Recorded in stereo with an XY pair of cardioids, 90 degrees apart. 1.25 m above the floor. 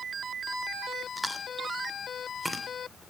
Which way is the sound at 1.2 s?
5° right.